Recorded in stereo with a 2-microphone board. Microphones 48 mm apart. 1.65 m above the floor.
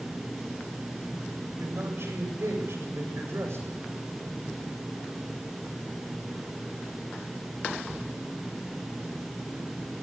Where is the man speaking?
60° right (ahead or behind), 8 m.